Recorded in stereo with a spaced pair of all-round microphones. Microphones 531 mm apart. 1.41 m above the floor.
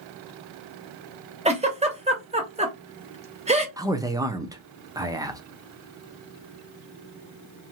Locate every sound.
1.4 s a giggle: 10° right (ahead or behind), 0.8 m
3.8 s a man speaking: 5° right (ahead or behind), 0.6 m